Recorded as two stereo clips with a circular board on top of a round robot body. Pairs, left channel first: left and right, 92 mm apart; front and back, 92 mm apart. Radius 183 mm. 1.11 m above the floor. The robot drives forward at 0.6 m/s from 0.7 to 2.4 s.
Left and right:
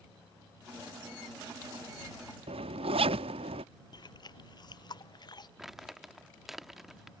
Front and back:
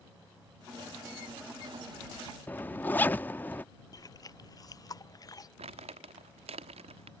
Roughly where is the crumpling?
Behind.